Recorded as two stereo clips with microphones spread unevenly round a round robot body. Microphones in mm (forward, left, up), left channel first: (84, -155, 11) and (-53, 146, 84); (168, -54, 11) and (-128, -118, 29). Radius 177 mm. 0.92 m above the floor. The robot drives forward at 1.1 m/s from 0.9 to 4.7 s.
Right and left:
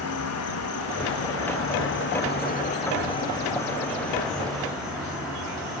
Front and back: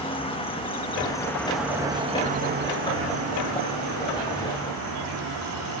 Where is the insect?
55° right, 2.5 m; by 5.8 s 155° right, 3.5 m.